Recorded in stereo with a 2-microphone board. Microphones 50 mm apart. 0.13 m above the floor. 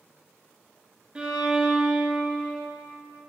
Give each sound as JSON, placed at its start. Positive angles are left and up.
{"t": 1.1, "sound": "a violin", "side_deg": -20, "distance_m": 0.9}